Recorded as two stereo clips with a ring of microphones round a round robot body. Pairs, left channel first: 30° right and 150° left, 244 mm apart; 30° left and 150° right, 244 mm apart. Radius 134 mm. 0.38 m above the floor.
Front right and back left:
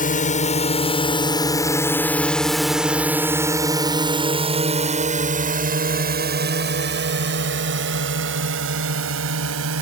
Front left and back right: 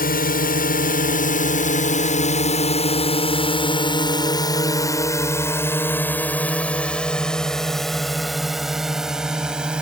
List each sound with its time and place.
0.0 s a drone: 5° left; by 9.8 s 125° left